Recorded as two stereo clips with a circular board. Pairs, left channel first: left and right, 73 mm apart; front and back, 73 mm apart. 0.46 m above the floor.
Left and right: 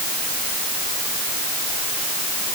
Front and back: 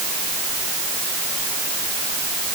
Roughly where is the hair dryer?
I don't hear a hair dryer.